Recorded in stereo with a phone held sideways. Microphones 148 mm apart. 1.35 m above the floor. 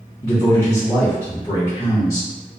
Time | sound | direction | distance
0.2 | a man speaking | 25° left (ahead or behind) | 0.8 m